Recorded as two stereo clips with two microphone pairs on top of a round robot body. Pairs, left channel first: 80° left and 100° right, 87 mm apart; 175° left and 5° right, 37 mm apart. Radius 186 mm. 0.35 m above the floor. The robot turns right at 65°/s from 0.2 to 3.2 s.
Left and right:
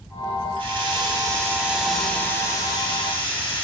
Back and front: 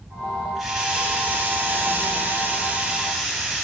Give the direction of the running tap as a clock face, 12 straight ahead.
3 o'clock.